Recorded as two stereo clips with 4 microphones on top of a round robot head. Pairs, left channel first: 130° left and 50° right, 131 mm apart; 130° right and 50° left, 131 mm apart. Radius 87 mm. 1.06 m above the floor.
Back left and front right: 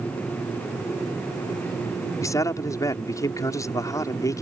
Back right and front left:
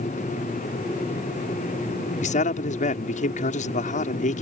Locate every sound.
2.2 s a man speaking: 160° right